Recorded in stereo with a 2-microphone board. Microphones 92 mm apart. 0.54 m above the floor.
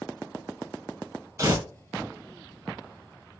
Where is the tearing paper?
35° right (ahead or behind), 0.9 m.